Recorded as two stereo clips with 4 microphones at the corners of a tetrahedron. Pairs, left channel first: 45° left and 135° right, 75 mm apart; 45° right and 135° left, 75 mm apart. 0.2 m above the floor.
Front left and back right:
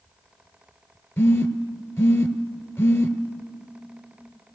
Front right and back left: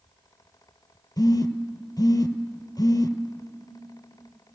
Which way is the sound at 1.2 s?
10° right.